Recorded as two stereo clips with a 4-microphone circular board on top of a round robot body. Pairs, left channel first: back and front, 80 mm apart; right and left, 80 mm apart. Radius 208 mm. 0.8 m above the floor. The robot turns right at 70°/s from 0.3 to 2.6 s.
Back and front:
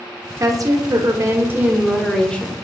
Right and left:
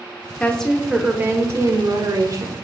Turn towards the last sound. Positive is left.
turn(degrees=130)